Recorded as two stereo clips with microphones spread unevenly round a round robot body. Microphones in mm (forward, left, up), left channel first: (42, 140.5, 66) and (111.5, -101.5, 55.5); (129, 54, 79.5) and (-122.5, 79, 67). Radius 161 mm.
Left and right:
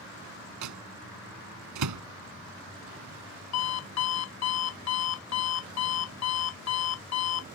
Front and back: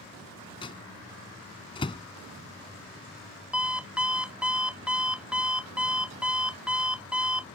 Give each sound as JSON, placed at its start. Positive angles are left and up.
{"t": 0.6, "sound": "a microwave", "azimuth_deg": -80}
{"t": 3.5, "sound": "an alarm clock", "azimuth_deg": 90}